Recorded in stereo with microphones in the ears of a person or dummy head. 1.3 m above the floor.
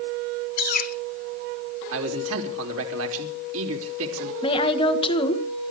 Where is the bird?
55° left (ahead or behind), 1.3 m.